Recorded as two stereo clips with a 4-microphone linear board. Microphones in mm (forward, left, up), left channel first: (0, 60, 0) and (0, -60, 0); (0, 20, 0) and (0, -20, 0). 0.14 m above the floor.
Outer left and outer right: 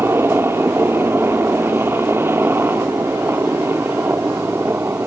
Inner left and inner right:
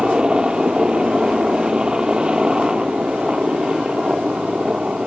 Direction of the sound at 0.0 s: 20° right (ahead or behind).